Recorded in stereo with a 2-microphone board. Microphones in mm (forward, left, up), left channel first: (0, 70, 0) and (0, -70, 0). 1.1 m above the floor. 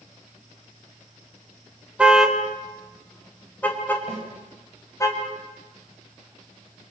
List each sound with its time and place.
2.0 s a car horn: 5° right (ahead or behind), 2.5 m; by 5.1 s 20° left (ahead or behind), 4.5 m
4.1 s a snare drum: 45° right (ahead or behind), 7.5 m